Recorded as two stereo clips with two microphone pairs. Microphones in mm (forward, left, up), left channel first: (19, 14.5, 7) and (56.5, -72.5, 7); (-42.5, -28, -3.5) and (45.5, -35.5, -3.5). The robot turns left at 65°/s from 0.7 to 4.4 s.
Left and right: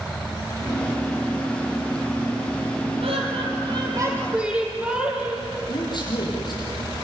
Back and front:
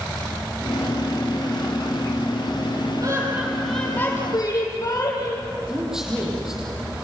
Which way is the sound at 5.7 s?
75° left.